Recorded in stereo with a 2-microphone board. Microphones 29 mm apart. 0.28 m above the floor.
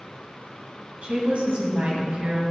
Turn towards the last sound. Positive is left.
turn(degrees=-50)  # may be behind; listen again after turning